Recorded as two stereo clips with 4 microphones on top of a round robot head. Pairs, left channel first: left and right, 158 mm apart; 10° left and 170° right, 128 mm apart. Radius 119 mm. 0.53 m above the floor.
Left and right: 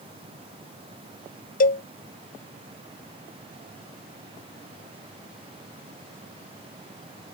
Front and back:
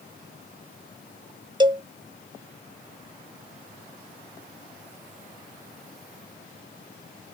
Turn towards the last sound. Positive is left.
turn(degrees=130)